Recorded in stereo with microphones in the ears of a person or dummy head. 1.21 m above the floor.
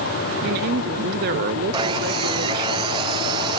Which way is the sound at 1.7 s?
15° right (ahead or behind).